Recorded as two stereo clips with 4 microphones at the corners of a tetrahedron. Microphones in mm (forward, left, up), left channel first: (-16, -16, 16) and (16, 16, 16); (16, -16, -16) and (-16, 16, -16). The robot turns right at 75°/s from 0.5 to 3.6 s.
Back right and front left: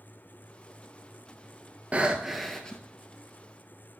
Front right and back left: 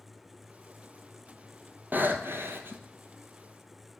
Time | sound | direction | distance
1.9 | breathing | 100° left | 1.0 m